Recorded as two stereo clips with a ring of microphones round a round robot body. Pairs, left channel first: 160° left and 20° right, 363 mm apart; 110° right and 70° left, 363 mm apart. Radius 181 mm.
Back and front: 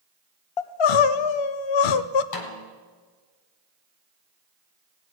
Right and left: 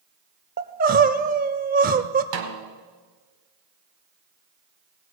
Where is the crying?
135° left, 0.5 m.